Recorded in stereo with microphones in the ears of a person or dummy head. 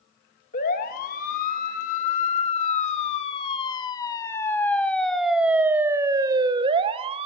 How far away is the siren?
About 3 m.